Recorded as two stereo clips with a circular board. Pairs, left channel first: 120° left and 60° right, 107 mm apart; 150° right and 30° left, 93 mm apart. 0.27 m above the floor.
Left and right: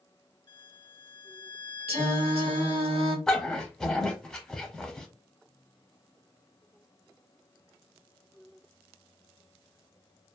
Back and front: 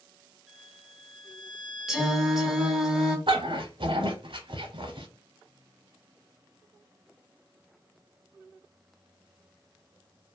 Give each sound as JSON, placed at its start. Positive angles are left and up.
{"t": 0.5, "sound": "a violin", "azimuth_deg": 120, "distance_m": 1.4}
{"t": 1.9, "sound": "singing", "azimuth_deg": -55, "distance_m": 0.9}
{"t": 3.3, "sound": "a dog barking", "azimuth_deg": 35, "distance_m": 0.6}